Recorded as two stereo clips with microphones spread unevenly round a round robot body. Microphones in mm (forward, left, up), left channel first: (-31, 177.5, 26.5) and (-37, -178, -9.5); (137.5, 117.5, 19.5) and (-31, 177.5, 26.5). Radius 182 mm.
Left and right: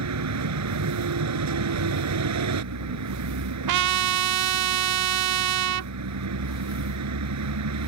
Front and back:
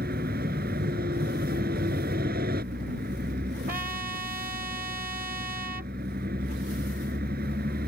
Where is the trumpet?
130° right.